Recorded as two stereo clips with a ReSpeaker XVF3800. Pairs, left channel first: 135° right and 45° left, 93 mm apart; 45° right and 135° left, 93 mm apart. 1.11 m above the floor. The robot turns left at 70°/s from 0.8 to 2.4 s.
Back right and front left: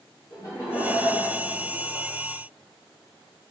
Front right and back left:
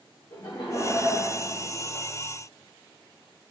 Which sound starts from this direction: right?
Laughter, at 0.3 s.